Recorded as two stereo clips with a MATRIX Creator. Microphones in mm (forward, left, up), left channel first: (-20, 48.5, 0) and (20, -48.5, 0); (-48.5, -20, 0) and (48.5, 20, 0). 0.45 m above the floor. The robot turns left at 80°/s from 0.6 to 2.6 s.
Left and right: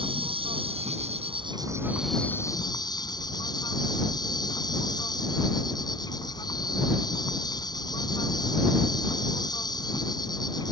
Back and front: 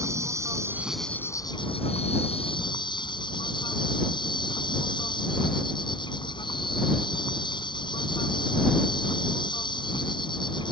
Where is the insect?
40° right; by 10.7 s 160° left.